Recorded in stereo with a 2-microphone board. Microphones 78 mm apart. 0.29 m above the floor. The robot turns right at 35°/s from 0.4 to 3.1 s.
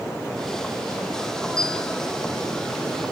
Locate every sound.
1.6 s a bell: 55° right (ahead or behind), 2.5 m; by 1.9 s 40° right (ahead or behind), 2.5 m